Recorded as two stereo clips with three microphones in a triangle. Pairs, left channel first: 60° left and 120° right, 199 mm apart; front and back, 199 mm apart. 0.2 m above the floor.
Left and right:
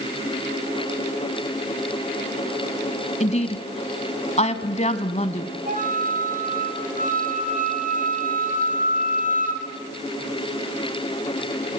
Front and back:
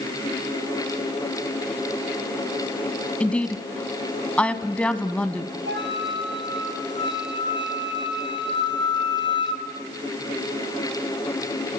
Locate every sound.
3.2 s a woman speaking: 80° left, 1.4 m
5.7 s a flute: 165° right, 2 m